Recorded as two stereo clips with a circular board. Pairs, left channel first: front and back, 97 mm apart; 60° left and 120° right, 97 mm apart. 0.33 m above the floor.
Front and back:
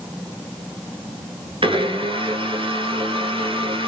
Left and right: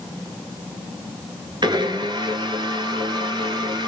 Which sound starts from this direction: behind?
A blender, at 1.6 s.